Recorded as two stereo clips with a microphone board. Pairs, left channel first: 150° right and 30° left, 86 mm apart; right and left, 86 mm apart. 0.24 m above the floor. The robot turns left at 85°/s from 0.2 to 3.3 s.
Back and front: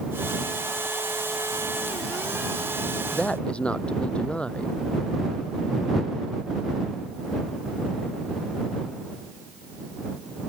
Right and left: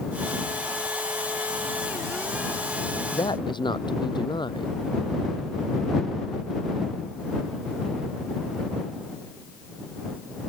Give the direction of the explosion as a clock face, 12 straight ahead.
I don't hear an explosion.